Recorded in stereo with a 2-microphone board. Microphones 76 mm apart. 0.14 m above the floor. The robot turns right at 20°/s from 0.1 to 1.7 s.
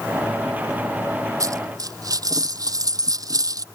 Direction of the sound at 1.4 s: 50° right (ahead or behind).